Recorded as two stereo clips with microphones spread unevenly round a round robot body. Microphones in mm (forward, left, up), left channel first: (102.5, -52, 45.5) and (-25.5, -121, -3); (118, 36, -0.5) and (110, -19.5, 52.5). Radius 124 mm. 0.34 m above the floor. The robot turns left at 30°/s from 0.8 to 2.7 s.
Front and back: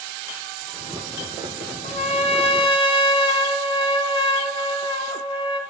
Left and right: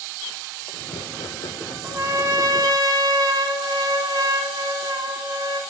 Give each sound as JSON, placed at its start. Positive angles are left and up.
{"t": 1.8, "sound": "a trumpet", "azimuth_deg": -10, "distance_m": 1.1}